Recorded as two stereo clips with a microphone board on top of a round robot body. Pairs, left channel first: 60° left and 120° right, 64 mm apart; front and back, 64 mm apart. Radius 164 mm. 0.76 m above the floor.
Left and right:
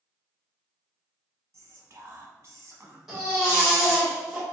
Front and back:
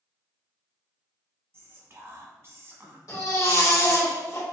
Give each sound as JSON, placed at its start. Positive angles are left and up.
{"t": 1.5, "sound": "whispering", "azimuth_deg": -145, "distance_m": 1.5}
{"t": 3.1, "sound": "a baby crying", "azimuth_deg": -30, "distance_m": 1.9}